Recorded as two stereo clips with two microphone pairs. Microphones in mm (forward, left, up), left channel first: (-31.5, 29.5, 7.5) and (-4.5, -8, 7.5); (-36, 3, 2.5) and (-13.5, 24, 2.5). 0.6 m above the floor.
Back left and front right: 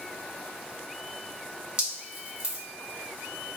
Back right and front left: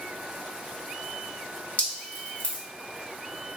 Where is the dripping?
125° right, 1.8 m.